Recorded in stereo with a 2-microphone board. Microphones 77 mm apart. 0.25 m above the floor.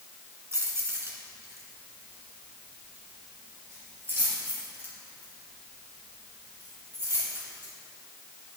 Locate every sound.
0.5 s keys jangling: 35° right (ahead or behind), 2 m